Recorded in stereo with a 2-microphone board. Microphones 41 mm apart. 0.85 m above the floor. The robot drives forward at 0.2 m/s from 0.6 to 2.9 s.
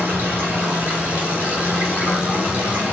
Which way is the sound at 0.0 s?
60° right (ahead or behind).